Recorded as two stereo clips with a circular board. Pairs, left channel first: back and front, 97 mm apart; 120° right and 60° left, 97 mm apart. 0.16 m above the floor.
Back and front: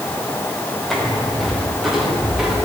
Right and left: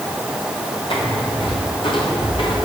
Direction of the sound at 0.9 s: 90° right.